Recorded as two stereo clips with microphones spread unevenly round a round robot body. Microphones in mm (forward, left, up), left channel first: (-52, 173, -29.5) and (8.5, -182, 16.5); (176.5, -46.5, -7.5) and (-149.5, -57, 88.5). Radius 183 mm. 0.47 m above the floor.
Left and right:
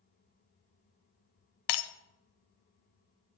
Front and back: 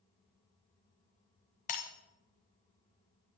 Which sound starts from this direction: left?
Breaking glass, at 1.7 s.